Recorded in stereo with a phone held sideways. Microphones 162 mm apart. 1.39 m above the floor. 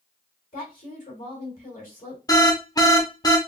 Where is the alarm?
25° left (ahead or behind), 0.7 m.